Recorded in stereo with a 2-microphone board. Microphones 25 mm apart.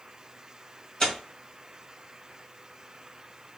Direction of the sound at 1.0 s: 30° left (ahead or behind).